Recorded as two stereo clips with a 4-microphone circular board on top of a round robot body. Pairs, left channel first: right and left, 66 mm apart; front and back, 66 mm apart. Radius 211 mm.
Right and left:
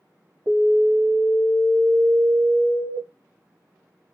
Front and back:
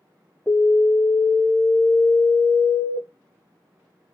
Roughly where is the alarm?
Left.